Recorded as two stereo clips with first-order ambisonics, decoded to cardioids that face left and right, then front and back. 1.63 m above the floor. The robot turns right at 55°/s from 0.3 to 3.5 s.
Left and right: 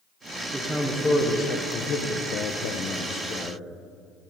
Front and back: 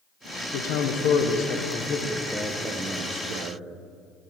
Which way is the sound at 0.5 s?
10° right.